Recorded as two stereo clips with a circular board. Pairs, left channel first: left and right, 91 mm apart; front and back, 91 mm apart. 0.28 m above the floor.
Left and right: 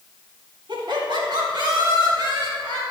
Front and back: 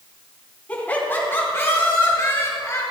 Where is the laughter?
70° right, 2.5 m; by 2.8 s 55° right, 5 m.